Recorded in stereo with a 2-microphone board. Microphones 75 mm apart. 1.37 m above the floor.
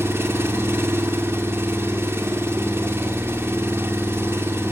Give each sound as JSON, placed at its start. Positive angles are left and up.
{"t": 0.0, "sound": "an engine running", "side_deg": -35, "distance_m": 1.6}